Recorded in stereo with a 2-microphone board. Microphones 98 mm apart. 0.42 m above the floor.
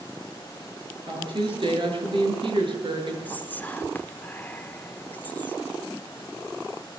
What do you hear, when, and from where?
1.1 s a woman speaking: 55° right (ahead or behind), 7.5 m
3.2 s whispering: 20° left (ahead or behind), 1.0 m